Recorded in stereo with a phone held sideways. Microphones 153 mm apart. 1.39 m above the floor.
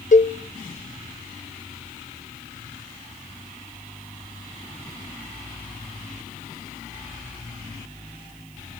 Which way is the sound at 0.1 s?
55° left (ahead or behind).